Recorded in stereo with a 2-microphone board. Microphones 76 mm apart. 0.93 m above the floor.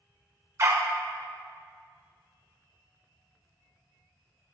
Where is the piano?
I don't hear a piano.